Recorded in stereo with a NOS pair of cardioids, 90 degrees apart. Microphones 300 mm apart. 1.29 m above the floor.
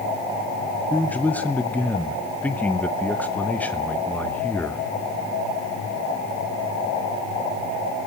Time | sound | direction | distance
0.9 | a man speaking | 5° left | 0.9 m